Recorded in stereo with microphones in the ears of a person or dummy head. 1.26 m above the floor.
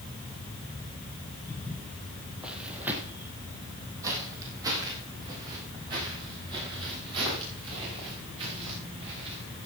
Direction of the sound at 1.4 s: 15° left (ahead or behind).